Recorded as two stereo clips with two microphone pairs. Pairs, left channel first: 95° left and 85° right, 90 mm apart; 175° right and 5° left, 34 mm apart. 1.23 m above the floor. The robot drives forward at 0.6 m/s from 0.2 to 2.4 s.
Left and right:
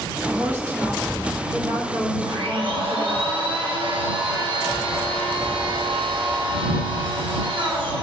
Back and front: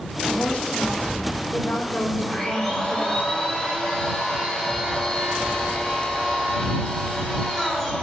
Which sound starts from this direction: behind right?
A woman speaking, at 0.3 s.